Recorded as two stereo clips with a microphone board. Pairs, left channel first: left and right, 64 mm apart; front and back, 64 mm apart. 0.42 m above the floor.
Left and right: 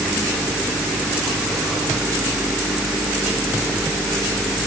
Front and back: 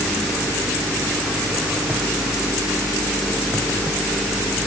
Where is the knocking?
I don't hear knocking.